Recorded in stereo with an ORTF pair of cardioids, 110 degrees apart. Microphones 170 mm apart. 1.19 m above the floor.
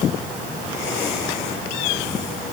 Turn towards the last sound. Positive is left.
No sound to turn to.